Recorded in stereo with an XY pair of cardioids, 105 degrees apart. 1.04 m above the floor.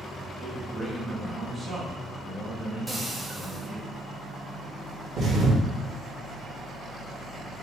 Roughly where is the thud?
Ahead right.